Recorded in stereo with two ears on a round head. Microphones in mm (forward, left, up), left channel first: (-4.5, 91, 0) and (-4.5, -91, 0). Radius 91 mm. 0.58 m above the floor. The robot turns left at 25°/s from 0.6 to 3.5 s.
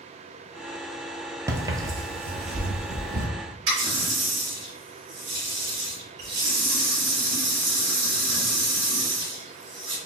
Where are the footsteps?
15° right (ahead or behind), 0.6 m; by 3.3 s 55° right (ahead or behind), 1.0 m.